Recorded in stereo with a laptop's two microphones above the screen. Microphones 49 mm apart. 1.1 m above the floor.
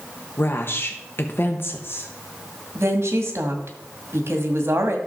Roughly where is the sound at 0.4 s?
Left.